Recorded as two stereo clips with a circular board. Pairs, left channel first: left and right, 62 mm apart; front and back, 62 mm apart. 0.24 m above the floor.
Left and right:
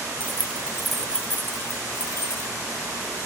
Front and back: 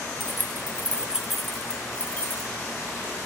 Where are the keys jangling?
140° right, 0.9 m; by 2.5 s 60° left, 1.3 m.